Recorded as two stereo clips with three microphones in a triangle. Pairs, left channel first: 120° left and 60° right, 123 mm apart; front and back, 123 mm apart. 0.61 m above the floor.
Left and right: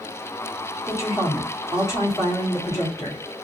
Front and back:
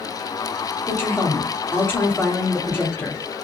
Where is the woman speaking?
65° left, 1.6 m.